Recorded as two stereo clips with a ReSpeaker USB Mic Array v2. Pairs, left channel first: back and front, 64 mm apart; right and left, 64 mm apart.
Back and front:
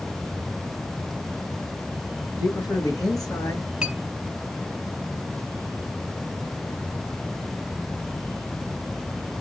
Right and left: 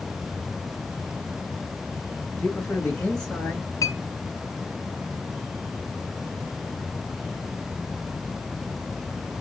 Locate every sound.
2.4 s a man speaking: 165° right, 3 m; by 3.7 s 170° right, 4 m
3.8 s a clink: 80° right, 1.1 m